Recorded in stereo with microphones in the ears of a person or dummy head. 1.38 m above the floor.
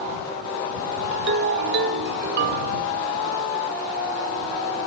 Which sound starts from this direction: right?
A ringtone, at 1.1 s.